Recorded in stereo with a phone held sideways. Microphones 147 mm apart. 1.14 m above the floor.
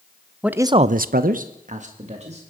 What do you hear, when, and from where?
0.4 s a man speaking: 5° right (ahead or behind), 0.7 m; by 2.4 s 45° right (ahead or behind), 2 m